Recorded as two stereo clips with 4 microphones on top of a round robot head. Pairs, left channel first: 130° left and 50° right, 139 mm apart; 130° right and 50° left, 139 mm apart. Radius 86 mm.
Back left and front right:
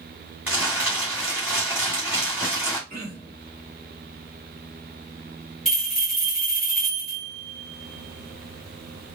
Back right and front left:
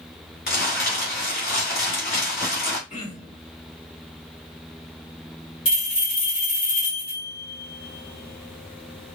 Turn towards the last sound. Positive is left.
turn(degrees=-145)